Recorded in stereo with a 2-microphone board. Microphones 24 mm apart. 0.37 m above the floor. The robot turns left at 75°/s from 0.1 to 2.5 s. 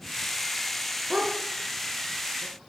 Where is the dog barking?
60° right (ahead or behind), 2.0 m; by 2.7 s 15° right (ahead or behind), 2.0 m.